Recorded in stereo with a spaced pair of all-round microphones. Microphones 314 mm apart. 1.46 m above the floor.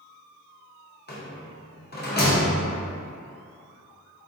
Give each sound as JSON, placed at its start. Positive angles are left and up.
{"t": 1.1, "sound": "a rattle", "side_deg": 30, "distance_m": 0.6}